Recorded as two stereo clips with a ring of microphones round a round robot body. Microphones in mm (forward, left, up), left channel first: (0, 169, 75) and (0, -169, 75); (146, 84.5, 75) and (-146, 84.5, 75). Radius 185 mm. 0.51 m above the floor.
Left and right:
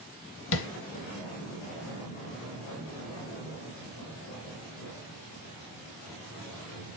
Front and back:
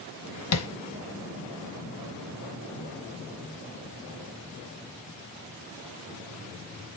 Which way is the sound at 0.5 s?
35° left.